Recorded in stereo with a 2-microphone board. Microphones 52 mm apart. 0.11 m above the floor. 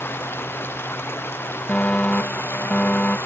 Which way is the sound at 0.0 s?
45° left (ahead or behind).